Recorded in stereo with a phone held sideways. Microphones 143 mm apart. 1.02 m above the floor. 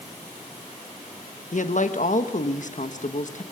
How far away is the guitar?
No guitar in this recording.